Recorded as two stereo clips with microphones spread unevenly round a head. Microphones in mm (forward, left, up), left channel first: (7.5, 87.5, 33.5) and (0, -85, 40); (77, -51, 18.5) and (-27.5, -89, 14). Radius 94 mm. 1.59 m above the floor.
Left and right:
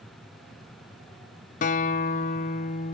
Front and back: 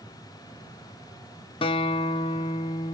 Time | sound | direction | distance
1.6 | a guitar | 50° left | 0.5 m